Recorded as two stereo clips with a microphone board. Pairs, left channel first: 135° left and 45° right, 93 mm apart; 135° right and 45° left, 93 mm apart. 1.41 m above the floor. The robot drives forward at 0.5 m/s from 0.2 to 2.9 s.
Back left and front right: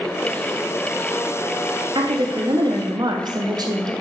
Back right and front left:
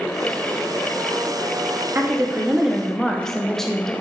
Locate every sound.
1.9 s a woman speaking: 20° right, 0.8 m; by 3.9 s 50° right, 0.5 m